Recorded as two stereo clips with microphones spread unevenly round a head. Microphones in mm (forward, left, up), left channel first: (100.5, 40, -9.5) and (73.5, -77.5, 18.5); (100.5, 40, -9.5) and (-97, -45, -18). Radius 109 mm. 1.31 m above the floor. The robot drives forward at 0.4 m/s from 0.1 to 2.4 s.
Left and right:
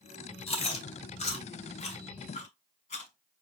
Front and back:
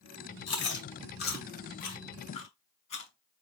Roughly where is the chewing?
Ahead left.